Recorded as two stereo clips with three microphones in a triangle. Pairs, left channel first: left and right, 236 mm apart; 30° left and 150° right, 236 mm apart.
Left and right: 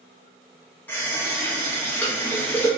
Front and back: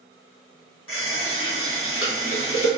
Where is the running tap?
10° left, 0.9 m.